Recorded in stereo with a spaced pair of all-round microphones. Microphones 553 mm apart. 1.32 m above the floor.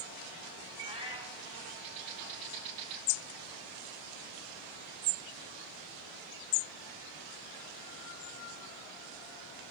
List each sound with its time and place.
0.8 s a cat meowing: 10° right (ahead or behind), 4 m